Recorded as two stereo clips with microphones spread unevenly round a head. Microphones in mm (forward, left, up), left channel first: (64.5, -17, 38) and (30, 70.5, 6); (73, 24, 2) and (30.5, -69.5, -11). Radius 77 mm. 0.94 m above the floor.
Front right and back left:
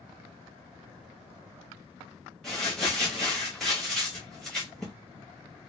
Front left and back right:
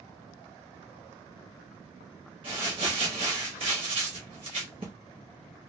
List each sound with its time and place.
2.4 s crumpling: 160° right, 0.7 m